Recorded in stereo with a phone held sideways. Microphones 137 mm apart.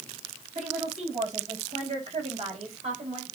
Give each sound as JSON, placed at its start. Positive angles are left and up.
{"t": 0.6, "sound": "a woman speaking", "side_deg": -55, "distance_m": 7.0}